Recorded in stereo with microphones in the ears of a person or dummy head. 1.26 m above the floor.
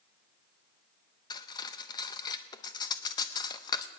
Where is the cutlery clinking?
20° left (ahead or behind), 0.6 m.